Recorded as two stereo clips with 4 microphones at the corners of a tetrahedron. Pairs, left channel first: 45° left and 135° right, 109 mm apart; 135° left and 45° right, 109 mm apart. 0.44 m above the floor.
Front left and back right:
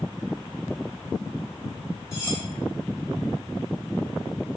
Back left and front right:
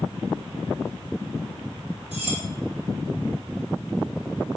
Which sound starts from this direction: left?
Cutlery clinking, at 2.1 s.